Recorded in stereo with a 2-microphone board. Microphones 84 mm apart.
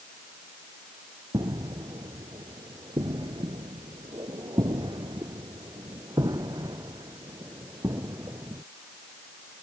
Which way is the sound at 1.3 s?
60° right (ahead or behind).